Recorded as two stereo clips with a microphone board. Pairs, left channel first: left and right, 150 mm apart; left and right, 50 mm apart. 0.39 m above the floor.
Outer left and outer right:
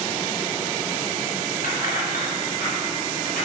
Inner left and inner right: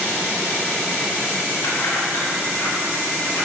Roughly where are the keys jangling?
Left.